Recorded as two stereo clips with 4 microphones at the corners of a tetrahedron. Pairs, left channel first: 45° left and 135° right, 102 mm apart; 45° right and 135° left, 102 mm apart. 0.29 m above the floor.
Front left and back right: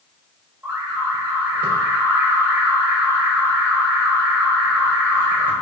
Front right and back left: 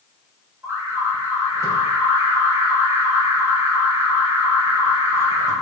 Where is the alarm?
170° left, 2 m.